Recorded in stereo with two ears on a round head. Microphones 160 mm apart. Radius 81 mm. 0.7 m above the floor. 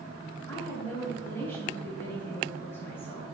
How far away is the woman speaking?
About 4 m.